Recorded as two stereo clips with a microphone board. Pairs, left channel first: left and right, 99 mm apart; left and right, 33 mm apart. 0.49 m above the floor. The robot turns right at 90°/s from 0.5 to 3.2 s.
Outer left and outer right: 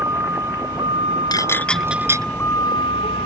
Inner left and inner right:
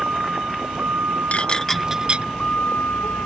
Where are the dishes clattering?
45° left (ahead or behind); by 2.3 s 40° right (ahead or behind).